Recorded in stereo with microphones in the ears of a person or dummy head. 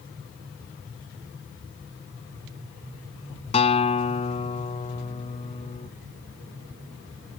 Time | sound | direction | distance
3.5 | a guitar | 40° left (ahead or behind) | ?